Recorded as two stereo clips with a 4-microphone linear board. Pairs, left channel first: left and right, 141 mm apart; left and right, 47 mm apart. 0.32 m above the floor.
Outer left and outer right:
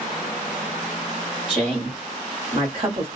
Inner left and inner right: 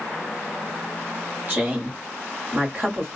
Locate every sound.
1.5 s a woman speaking: 40° right (ahead or behind), 1.3 m